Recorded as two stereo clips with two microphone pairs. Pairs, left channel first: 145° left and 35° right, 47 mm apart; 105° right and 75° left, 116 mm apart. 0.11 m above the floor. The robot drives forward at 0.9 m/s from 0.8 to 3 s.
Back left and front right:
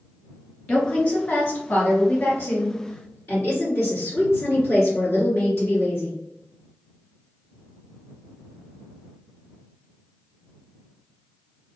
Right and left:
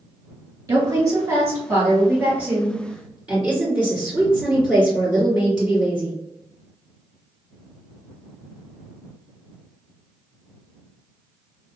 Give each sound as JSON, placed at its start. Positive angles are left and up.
{"t": 0.7, "sound": "a woman speaking", "azimuth_deg": 105, "distance_m": 1.7}